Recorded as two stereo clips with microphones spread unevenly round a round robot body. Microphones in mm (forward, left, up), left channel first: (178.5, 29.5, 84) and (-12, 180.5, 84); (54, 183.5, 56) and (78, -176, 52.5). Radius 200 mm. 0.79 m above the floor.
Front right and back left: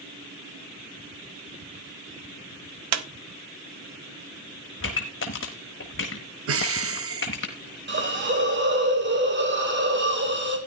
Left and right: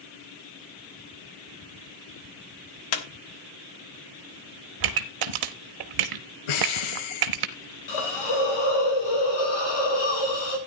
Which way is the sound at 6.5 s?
110° left.